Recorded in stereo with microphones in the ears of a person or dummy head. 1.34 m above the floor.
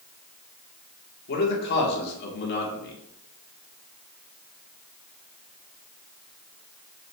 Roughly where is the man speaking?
Left.